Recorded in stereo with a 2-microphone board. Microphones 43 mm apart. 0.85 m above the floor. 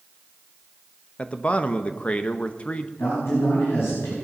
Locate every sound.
1.2 s a man speaking: 30° left (ahead or behind), 0.7 m
3.0 s a man speaking: 75° left (ahead or behind), 5 m